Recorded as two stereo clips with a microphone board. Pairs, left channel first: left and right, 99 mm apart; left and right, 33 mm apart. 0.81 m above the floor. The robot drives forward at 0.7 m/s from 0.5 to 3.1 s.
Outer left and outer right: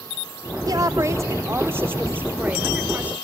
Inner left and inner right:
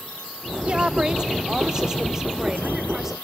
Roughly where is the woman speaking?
Right.